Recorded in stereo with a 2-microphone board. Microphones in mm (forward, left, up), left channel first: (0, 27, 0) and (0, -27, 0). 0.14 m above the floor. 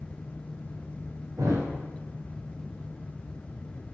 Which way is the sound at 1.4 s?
75° right (ahead or behind).